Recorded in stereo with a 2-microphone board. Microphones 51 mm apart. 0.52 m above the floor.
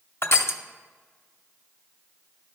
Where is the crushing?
50° left (ahead or behind), 0.6 m.